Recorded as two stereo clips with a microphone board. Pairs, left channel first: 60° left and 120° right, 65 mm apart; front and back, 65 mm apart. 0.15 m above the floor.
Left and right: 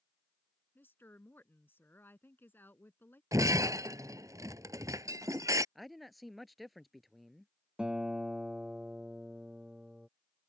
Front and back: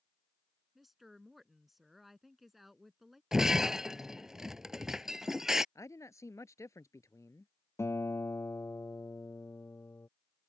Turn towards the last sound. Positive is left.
turn(degrees=-45)